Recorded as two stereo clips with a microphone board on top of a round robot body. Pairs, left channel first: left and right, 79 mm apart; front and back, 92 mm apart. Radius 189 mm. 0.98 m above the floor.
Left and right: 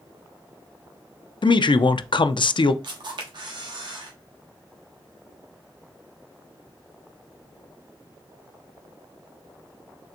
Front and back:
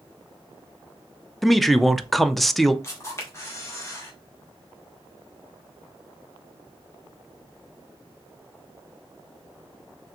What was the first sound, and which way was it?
A man speaking, 90° left.